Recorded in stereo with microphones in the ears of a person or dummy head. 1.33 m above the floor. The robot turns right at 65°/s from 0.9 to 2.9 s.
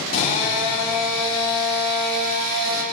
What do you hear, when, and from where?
0.1 s a drill: 130° left, 3.5 m; by 2.8 s 105° right, 3.5 m